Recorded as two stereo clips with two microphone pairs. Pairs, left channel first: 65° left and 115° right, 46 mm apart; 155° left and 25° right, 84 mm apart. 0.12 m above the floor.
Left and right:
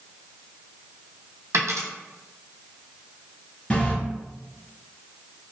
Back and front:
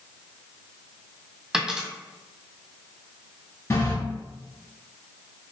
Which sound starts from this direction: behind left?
A running tap, at 3.7 s.